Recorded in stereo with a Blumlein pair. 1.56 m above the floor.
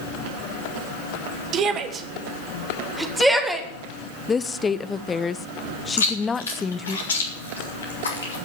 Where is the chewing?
70° left, 3.5 m.